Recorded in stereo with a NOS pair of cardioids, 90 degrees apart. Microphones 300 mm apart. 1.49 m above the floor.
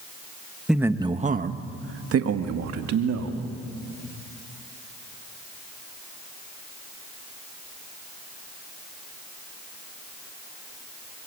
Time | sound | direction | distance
0.7 | a man speaking | straight ahead | 1.3 m